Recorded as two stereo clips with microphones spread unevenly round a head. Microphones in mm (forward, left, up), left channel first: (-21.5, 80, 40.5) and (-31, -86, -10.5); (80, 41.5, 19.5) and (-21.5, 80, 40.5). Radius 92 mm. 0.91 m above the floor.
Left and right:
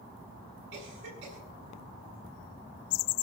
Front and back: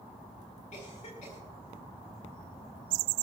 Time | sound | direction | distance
0.7 | a cough | 60° right | 7.5 m